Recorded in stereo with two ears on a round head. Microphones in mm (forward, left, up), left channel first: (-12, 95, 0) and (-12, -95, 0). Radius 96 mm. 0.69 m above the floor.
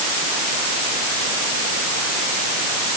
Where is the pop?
I don't hear a pop.